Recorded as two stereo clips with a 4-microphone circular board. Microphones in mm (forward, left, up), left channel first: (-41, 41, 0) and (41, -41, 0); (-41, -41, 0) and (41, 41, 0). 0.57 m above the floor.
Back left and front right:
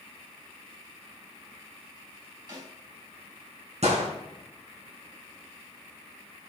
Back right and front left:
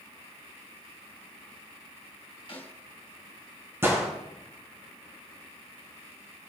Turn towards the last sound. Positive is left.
turn(degrees=-25)